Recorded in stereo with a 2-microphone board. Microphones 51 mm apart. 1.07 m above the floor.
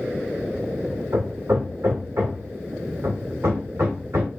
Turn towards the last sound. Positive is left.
turn(degrees=-65)  # may be behind; listen again after turning